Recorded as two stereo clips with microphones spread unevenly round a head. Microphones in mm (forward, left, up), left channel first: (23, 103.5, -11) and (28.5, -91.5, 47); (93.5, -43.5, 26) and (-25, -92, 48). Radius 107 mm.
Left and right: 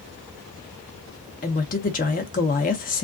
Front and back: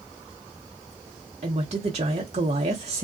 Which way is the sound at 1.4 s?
150° left.